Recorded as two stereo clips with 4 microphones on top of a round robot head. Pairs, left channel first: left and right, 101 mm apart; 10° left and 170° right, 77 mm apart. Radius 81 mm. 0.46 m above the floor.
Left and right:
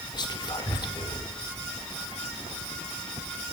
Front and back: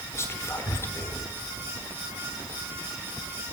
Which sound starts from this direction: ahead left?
Whispering, at 0.1 s.